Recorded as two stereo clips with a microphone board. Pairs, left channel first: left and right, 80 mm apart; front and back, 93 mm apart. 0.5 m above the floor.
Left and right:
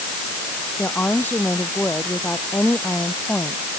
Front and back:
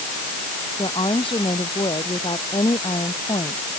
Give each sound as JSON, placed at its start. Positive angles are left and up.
{"t": 0.8, "sound": "a woman speaking", "azimuth_deg": 20}